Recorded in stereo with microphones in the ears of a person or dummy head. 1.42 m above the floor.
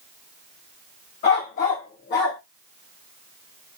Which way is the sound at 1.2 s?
40° left (ahead or behind).